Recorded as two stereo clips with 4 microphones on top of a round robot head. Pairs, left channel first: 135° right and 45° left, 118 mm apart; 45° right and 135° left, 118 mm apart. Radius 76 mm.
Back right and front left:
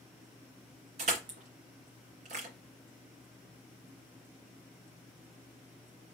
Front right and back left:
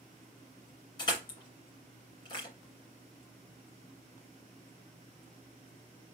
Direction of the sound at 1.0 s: 10° left.